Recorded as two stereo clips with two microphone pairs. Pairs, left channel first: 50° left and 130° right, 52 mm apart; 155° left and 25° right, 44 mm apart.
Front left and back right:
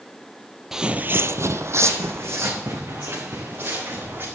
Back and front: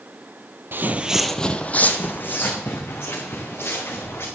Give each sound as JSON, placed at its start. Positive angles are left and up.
{"t": 0.7, "sound": "footsteps", "azimuth_deg": -55, "distance_m": 0.7}